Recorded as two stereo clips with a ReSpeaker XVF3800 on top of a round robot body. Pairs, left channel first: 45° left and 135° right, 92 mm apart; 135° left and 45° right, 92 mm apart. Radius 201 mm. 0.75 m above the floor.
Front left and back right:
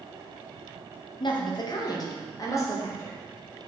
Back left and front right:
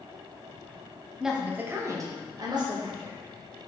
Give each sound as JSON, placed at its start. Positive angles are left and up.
{"t": 1.2, "sound": "a woman speaking", "azimuth_deg": 40, "distance_m": 1.0}